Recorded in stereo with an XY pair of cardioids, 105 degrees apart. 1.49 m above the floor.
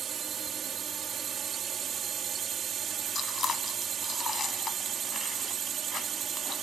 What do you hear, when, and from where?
0.0 s a drone: 55° right
3.1 s chewing: 45° left